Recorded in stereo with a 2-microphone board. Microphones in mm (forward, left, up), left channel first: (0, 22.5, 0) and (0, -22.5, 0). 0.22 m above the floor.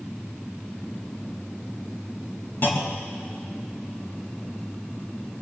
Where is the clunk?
50° left (ahead or behind), 1.9 m.